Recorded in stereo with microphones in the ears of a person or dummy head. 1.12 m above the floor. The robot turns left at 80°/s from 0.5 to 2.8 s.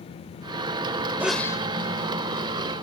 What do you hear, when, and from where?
1.2 s a sneeze: 170° right; by 1.6 s 155° left